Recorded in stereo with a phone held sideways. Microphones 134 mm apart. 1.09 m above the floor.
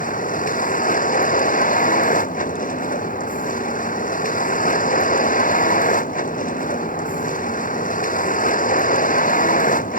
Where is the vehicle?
85° left.